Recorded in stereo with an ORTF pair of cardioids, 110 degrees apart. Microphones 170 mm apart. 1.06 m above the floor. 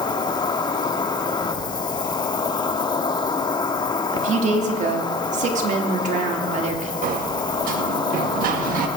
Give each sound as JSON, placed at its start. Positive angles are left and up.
{"t": 0.0, "sound": "an insect", "azimuth_deg": 25, "distance_m": 1.5}
{"t": 4.1, "sound": "a woman speaking", "azimuth_deg": -50, "distance_m": 2.5}
{"t": 7.0, "sound": "a sliding door", "azimuth_deg": -65, "distance_m": 1.6}